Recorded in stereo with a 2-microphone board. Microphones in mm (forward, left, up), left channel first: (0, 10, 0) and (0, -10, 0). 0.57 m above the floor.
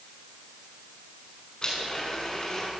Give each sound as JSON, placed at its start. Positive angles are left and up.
{"t": 1.6, "sound": "a blender", "side_deg": 40, "distance_m": 6.5}